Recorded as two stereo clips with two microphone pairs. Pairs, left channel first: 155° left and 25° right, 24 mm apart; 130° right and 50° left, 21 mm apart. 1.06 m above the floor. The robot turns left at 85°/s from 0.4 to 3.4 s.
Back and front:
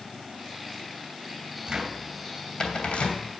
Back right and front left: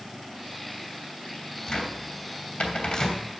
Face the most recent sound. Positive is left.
turn(degrees=140)